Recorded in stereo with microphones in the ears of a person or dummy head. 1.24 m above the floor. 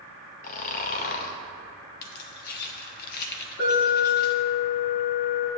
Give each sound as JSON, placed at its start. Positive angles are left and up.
{"t": 0.4, "sound": "snoring", "side_deg": 45, "distance_m": 0.9}
{"t": 2.0, "sound": "keys jangling", "side_deg": 55, "distance_m": 0.9}
{"t": 3.6, "sound": "an alarm", "side_deg": 55, "distance_m": 4.0}